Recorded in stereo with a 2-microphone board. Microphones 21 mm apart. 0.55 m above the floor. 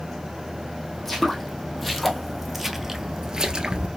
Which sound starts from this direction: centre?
Footsteps, at 0.9 s.